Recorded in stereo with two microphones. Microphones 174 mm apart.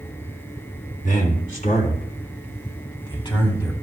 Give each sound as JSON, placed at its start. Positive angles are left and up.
{"t": 1.0, "sound": "a man speaking", "side_deg": 60, "distance_m": 3.0}